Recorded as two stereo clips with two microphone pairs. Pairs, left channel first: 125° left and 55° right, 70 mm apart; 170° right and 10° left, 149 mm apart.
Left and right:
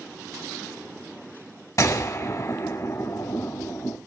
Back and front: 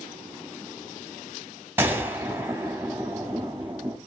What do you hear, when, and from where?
1.8 s a gunshot: 90° left, 1.3 m